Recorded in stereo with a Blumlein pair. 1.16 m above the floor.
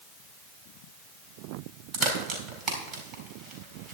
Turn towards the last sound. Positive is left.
turn(degrees=-30)